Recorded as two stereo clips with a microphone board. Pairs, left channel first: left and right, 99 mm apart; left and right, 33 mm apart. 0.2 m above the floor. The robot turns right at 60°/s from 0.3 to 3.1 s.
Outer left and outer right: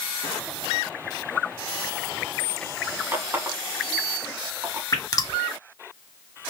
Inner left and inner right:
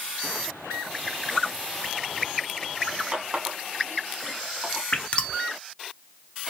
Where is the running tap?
30° right (ahead or behind), 1.0 m.